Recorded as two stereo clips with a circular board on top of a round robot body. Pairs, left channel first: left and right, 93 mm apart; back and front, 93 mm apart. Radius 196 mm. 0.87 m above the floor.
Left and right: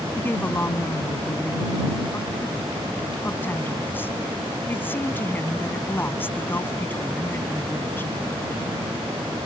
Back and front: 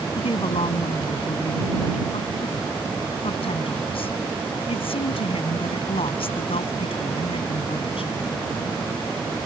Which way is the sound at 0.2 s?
160° left.